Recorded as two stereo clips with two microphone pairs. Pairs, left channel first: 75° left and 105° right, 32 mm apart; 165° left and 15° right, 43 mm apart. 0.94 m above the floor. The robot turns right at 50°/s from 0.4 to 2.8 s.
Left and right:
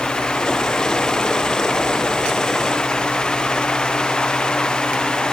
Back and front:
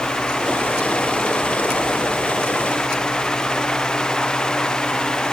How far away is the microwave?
No microwave in this recording.